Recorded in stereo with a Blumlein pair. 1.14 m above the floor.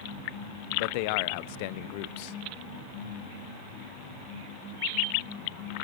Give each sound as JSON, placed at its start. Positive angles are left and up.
{"t": 0.7, "sound": "a man speaking", "azimuth_deg": 45, "distance_m": 0.5}